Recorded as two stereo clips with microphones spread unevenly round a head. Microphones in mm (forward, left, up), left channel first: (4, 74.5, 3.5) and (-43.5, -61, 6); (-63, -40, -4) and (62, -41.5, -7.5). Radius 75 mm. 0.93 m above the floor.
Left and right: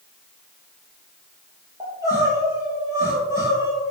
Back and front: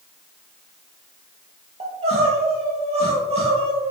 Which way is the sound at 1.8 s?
40° right.